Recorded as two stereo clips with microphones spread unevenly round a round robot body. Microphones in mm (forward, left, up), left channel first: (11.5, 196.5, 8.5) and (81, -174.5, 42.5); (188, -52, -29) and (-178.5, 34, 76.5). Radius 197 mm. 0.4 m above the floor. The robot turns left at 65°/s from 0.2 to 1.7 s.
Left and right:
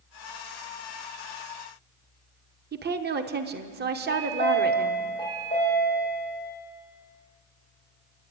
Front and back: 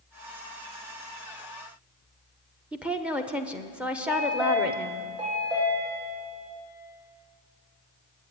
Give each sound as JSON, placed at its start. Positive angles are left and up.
{"t": 2.7, "sound": "a woman speaking", "azimuth_deg": -65, "distance_m": 1.0}
{"t": 4.1, "sound": "a chime", "azimuth_deg": 180, "distance_m": 9.5}